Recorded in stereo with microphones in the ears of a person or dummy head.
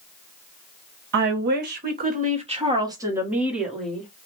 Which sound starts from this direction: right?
A woman speaking, at 1.1 s.